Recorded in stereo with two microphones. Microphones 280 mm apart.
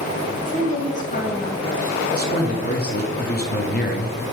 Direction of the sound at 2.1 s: 30° left (ahead or behind).